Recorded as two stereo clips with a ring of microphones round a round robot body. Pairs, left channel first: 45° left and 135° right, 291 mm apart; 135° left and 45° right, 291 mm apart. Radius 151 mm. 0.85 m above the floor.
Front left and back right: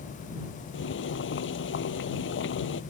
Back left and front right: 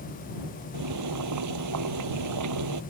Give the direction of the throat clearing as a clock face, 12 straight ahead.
No throat clearing in this recording.